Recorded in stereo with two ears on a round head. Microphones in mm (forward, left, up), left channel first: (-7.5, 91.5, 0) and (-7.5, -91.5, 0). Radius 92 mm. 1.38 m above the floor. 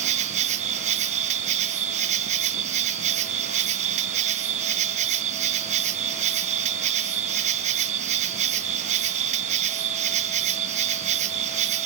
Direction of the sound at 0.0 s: 35° right (ahead or behind).